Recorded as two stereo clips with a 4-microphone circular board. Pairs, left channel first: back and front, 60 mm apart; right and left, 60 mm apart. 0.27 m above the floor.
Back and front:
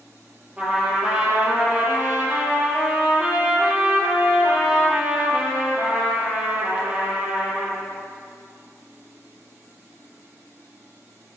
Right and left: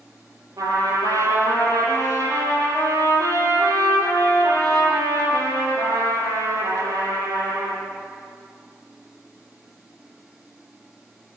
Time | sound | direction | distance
0.6 | a trumpet | 70° left | 8 m